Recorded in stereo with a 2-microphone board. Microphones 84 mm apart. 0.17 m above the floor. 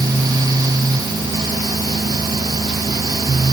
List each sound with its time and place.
Only background noise.